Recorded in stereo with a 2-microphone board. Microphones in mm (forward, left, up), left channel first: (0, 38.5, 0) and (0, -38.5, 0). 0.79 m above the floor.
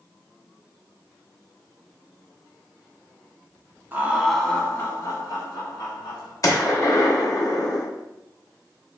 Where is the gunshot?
50° left (ahead or behind), 0.7 m.